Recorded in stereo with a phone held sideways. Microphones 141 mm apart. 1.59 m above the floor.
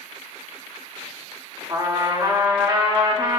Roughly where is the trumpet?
Right.